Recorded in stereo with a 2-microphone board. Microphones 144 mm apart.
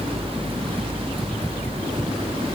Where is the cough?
I don't hear a cough.